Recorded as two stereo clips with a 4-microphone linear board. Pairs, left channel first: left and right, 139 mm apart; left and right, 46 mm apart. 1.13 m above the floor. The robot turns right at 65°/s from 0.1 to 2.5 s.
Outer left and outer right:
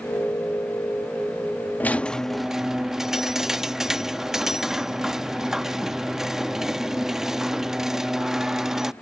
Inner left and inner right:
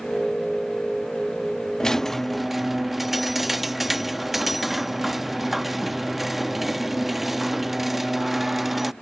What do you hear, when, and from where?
1.8 s a squeak: 10° left (ahead or behind); by 8.9 s 5° right (ahead or behind)